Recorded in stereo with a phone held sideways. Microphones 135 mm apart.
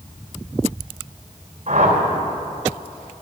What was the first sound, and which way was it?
A whoosh, 60° right (ahead or behind).